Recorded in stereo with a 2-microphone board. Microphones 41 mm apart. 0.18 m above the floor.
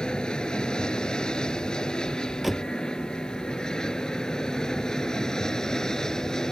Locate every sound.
0.0 s an aircraft: 20° left (ahead or behind); by 6.5 s 15° left (ahead or behind)
2.4 s a door slam: centre (ahead or behind)